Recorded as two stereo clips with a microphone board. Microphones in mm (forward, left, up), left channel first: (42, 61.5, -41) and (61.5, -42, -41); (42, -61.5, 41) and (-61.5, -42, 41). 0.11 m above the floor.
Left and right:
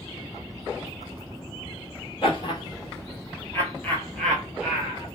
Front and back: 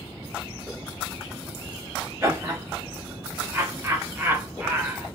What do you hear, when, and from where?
2.2 s laughter: 110° left, 1.7 m; by 5.1 s 130° right, 1.2 m